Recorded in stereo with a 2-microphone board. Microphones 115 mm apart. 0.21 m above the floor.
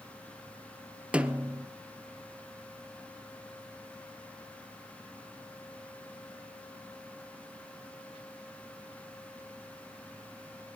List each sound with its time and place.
1.1 s a snare drum: 10° right (ahead or behind), 1.3 m